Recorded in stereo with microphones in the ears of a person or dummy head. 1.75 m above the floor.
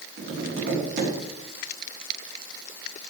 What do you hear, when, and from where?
0.2 s tapping: 45° right (ahead or behind), 3.5 m